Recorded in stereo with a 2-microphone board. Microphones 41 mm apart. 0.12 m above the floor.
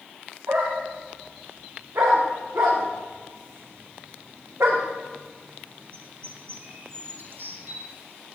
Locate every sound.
0.5 s a dog barking: 75° right (ahead or behind), 5.5 m; by 7.8 s 55° right (ahead or behind), 2.5 m